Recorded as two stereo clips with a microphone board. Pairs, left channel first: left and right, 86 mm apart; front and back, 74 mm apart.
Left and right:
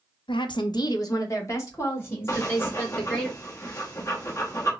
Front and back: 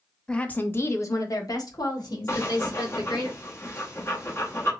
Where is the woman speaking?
80° left, 0.6 m; by 3.3 s 20° left, 2.5 m.